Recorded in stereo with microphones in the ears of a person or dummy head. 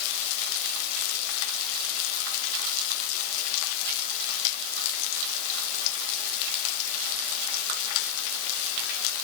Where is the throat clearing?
I don't hear throat clearing.